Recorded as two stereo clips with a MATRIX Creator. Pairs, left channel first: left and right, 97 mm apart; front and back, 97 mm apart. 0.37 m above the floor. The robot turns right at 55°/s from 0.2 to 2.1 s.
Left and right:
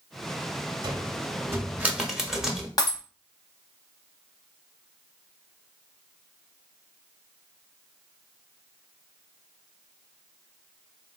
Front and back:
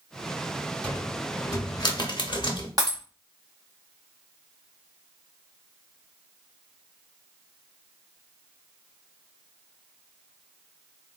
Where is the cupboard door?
75° right, 0.8 m; by 2.7 s 5° right, 0.8 m.